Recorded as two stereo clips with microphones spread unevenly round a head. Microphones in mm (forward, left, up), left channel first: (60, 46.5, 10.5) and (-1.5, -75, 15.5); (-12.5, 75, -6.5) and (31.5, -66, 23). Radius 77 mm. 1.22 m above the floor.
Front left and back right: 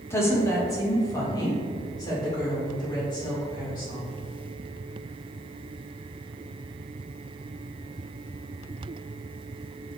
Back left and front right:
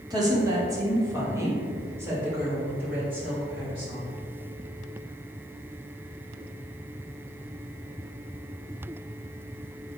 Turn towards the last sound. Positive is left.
turn(degrees=10)